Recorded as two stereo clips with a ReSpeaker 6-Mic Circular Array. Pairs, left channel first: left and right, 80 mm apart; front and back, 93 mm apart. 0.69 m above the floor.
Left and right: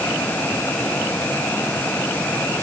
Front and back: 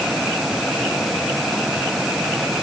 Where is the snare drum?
No snare drum in this recording.